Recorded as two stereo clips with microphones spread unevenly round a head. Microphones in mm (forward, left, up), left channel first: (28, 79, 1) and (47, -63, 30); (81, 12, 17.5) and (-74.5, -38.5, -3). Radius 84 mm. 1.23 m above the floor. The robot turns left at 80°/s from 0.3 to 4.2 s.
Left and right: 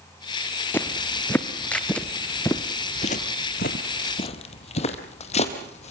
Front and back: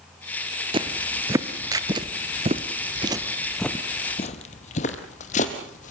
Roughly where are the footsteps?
Behind.